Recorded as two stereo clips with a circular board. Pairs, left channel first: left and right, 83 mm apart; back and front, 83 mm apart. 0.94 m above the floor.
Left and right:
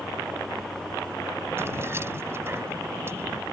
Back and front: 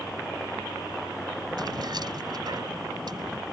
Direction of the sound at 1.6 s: 30° right.